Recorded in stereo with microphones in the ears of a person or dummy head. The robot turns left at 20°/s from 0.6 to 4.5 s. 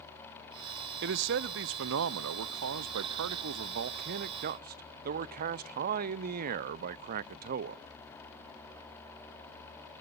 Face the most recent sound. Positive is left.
turn(degrees=-130)